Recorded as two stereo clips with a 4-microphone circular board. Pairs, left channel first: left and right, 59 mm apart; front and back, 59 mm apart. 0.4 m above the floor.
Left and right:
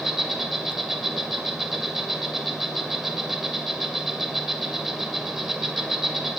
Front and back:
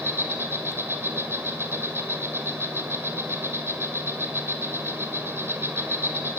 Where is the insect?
170° right, 1.9 m.